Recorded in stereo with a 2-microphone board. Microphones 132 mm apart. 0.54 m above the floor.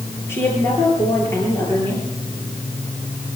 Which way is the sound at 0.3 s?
20° left (ahead or behind).